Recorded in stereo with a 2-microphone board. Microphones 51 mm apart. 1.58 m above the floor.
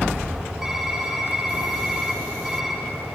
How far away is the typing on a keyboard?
About 5 m.